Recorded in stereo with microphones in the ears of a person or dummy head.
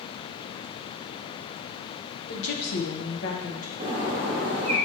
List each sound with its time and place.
2.3 s a woman speaking: 70° left (ahead or behind), 1.3 m; by 3.7 s 40° left (ahead or behind), 1.9 m
3.8 s a bird: 30° right (ahead or behind), 2.5 m